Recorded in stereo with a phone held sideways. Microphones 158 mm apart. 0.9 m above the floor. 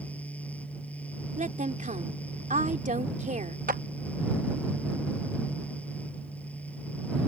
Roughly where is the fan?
Centre.